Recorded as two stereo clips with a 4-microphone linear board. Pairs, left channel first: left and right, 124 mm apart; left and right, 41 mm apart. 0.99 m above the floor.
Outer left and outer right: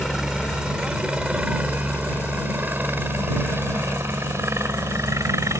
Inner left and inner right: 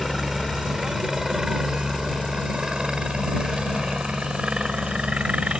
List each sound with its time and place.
0.0 s a helicopter: 5° right (ahead or behind); by 5.6 s 25° right (ahead or behind)